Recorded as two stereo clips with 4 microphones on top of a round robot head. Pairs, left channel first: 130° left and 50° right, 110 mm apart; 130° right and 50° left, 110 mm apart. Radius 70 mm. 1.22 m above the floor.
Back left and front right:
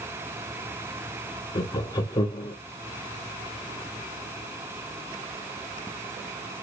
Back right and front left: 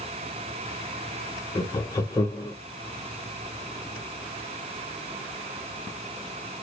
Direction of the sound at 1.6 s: 175° left.